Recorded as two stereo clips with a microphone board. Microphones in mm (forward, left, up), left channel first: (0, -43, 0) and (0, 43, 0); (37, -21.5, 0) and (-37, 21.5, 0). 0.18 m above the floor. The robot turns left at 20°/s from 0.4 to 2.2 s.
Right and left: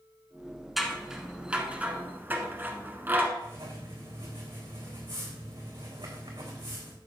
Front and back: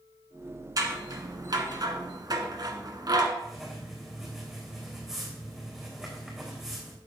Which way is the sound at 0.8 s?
Straight behind.